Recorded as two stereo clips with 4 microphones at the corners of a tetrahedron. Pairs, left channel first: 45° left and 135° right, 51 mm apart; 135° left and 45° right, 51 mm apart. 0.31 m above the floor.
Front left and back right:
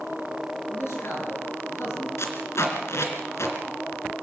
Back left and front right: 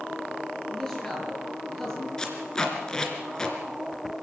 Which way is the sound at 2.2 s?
60° left.